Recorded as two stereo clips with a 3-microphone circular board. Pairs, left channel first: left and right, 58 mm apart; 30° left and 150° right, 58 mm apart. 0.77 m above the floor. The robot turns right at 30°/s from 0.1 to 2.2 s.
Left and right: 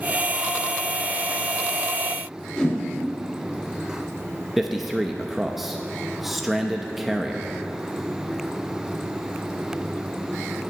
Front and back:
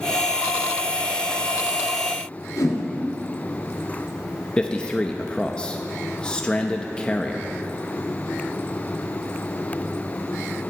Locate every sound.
2.6 s a whoosh: 15° left, 3 m
4.6 s a man speaking: 15° right, 0.7 m